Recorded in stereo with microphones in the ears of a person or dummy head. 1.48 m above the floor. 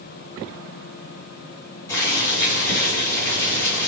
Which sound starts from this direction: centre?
Boiling, at 1.9 s.